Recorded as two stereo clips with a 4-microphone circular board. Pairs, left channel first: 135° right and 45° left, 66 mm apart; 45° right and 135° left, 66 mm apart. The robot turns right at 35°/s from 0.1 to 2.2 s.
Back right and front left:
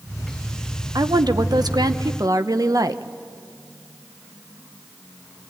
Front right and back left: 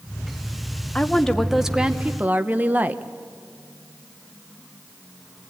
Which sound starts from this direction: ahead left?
A woman speaking, at 0.9 s.